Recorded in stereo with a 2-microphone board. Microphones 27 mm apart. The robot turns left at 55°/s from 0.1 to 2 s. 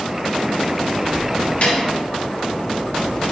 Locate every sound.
1.6 s a snare drum: 55° left (ahead or behind), 2.5 m; by 1.8 s 50° left (ahead or behind), 2.5 m